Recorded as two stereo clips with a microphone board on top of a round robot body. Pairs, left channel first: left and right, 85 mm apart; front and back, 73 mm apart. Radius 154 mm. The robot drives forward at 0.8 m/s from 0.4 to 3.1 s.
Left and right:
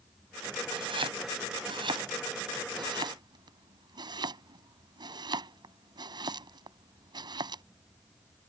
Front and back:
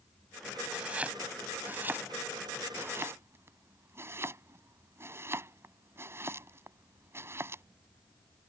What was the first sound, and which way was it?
Chopping, 105° right.